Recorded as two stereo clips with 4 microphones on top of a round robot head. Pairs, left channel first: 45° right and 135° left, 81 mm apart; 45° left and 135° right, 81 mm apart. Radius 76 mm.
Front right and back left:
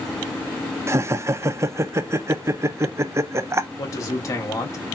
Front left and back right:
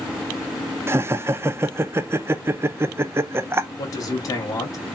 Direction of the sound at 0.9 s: 175° left.